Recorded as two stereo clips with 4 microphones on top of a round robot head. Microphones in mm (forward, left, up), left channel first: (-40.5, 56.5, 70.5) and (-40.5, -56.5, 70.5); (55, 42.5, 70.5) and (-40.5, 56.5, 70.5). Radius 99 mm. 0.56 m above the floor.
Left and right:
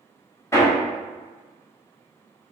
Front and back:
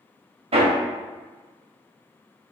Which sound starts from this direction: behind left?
Hammering, at 0.5 s.